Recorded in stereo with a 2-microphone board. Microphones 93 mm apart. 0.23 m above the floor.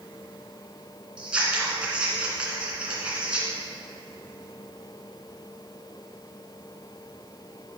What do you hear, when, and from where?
1.2 s scissors: 10° right (ahead or behind), 2.5 m